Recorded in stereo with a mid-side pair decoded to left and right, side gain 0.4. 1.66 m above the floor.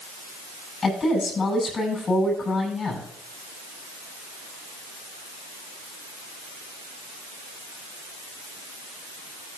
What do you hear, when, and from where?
0.8 s a woman speaking: 45° left, 7 m